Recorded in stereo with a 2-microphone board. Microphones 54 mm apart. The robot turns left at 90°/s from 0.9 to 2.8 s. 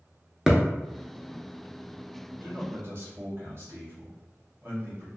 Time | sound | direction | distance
0.5 | a thud | 5° right (ahead or behind) | 0.6 m
2.4 | a man speaking | 60° right | 1.1 m